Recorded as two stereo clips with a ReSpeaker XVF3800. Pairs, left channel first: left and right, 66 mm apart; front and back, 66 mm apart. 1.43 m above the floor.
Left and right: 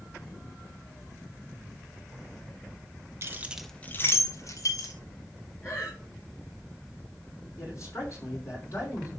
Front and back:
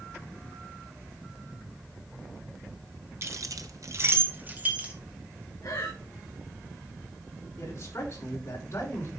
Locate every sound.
3.2 s keys jangling: 135° right, 0.9 m; by 4.9 s 110° left, 2 m
5.6 s breathing: 35° left, 6.5 m
7.6 s a man speaking: 50° left, 6 m